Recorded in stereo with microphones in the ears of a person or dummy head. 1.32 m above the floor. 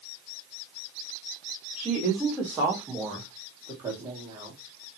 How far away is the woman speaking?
About 4 m.